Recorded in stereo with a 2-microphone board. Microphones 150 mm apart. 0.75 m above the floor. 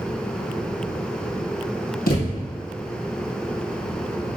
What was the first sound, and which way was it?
A thud, 75° left (ahead or behind).